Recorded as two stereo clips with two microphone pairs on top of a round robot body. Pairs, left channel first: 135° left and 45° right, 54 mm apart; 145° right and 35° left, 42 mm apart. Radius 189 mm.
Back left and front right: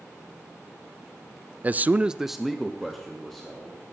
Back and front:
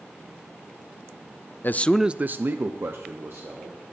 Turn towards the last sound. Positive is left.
turn(degrees=50)